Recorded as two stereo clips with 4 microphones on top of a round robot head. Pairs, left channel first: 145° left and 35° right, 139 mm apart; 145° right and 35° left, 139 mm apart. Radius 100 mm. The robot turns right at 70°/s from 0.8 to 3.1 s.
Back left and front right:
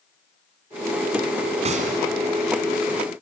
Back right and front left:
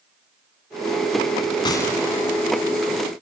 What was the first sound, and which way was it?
A gunshot, 85° right.